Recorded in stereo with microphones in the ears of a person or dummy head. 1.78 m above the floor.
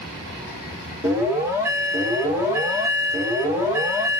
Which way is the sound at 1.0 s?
10° right (ahead or behind).